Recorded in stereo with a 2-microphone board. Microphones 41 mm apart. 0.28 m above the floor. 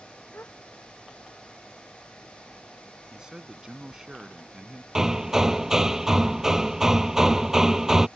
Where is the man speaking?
15° right (ahead or behind).